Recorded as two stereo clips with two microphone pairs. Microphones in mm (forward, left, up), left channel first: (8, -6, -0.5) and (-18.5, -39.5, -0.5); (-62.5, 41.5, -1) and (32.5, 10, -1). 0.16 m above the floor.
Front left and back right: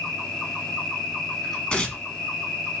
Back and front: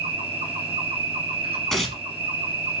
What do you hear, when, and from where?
0.0 s an insect: 25° right, 1.7 m
1.7 s tearing paper: 80° left, 0.8 m